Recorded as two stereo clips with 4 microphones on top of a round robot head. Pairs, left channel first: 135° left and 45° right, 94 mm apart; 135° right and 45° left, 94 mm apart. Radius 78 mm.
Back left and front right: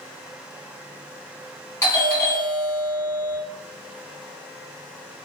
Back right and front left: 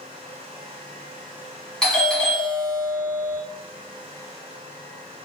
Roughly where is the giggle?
I don't hear a giggle.